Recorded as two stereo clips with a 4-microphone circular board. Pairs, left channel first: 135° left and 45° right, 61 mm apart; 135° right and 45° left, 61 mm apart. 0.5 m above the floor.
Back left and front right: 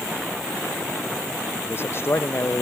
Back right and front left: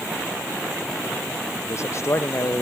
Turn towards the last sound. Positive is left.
turn(degrees=-175)